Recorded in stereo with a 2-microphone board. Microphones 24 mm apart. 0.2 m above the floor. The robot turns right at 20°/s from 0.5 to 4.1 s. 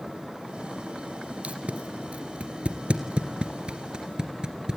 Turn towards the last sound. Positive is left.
turn(degrees=-40)  # may be behind; listen again after turning